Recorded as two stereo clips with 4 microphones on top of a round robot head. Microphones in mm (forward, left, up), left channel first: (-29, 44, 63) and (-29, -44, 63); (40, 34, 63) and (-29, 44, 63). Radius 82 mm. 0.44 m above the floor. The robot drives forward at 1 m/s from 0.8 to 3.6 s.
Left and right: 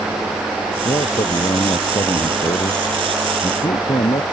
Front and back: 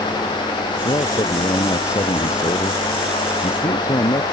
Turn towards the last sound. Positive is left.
turn(degrees=40)